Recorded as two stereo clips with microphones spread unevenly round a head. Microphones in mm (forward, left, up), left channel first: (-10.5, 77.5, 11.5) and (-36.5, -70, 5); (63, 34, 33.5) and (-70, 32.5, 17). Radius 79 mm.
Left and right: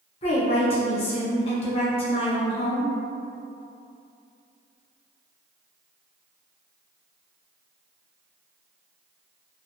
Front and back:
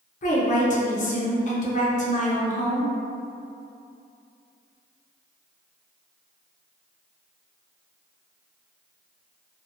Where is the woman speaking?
30° left, 0.7 m.